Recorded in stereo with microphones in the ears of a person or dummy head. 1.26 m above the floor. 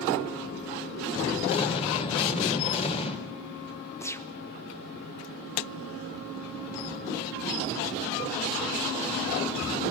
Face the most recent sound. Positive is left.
turn(degrees=10)  # may be behind; listen again after turning